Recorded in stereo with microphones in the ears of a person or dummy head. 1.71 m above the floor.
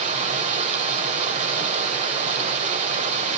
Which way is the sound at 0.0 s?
35° right (ahead or behind).